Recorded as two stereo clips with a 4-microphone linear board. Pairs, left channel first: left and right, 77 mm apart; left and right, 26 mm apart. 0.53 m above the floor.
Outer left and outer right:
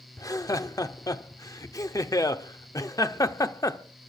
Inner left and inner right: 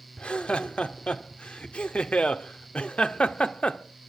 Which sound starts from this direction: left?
Laughter, at 0.2 s.